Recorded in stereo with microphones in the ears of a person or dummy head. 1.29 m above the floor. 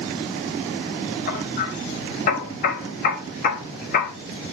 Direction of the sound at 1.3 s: 55° left (ahead or behind).